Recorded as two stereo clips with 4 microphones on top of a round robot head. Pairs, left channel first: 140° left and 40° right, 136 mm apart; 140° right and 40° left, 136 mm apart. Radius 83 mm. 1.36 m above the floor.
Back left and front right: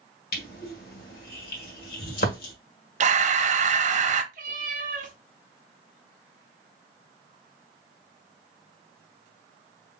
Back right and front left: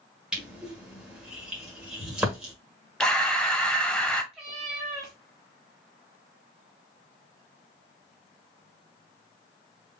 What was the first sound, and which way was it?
Crushing, 125° left.